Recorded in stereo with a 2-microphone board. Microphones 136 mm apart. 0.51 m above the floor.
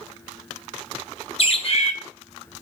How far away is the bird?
About 1.8 m.